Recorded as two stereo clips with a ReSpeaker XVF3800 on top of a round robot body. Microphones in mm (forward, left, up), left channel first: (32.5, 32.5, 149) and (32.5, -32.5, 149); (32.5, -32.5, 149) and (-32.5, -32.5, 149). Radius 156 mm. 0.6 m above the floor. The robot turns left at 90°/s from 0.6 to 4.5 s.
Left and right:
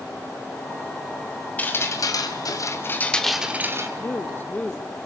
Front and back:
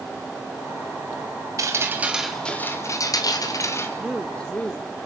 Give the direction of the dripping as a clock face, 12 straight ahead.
7 o'clock.